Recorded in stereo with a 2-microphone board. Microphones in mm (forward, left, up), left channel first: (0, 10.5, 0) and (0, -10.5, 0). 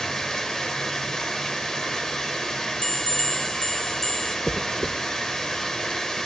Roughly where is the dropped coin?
Centre.